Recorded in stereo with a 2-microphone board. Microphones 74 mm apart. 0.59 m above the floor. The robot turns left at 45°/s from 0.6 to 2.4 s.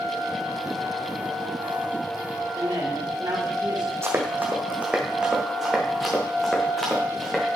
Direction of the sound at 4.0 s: 35° right (ahead or behind).